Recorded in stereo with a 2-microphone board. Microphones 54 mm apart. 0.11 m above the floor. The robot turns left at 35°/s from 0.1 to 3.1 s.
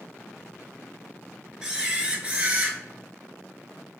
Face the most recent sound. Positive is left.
turn(degrees=-70)